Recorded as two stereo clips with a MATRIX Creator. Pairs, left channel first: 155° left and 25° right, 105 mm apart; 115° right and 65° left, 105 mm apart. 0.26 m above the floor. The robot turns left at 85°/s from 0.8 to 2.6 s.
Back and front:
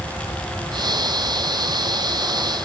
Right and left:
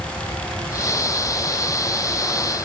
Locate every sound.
Only background noise.